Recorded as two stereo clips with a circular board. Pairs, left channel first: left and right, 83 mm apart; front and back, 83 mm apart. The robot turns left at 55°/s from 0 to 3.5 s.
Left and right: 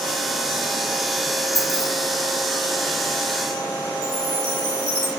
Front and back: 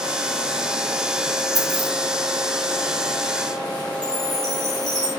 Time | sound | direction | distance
1.6 | keys jangling | 145° left | 2.5 m
4.0 | a chime | 35° right | 2.5 m